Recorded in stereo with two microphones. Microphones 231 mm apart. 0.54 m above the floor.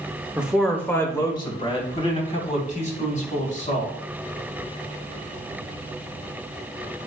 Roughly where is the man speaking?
Centre.